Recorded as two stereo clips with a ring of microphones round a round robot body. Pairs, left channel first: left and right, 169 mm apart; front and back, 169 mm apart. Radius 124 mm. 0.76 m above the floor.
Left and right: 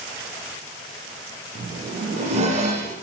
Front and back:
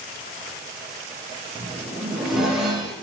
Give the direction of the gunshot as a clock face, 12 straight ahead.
No gunshot in this recording.